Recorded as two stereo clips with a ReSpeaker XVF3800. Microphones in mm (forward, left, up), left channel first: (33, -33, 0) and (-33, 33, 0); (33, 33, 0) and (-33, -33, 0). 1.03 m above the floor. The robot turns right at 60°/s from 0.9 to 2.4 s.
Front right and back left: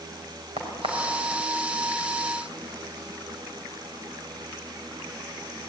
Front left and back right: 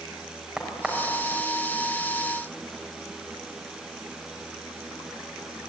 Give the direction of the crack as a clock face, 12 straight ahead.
7 o'clock.